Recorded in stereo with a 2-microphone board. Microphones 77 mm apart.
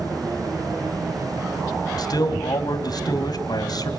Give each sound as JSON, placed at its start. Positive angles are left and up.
{"t": 2.0, "sound": "a man speaking", "side_deg": 60, "distance_m": 3.0}